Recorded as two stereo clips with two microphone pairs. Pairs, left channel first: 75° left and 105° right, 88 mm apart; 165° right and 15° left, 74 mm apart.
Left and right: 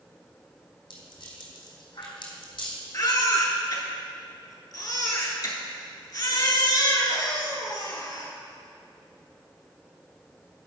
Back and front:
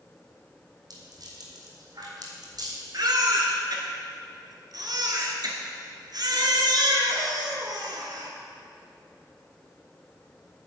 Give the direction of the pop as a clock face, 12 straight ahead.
I don't hear a pop.